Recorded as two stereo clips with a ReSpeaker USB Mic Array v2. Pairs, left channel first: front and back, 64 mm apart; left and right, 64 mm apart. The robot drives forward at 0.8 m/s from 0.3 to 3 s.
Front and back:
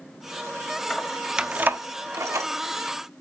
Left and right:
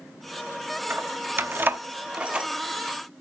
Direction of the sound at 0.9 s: 60° right.